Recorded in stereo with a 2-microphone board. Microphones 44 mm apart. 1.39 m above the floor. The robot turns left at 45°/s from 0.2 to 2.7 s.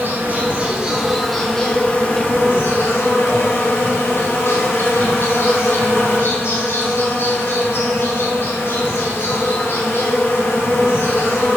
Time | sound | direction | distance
0.0 | an insect | 130° right | 3 m